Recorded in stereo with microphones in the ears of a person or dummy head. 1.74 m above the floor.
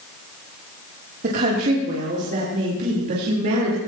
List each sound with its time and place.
1.2 s a woman speaking: 50° right (ahead or behind), 3 m; by 3.8 s 55° right (ahead or behind), 4.5 m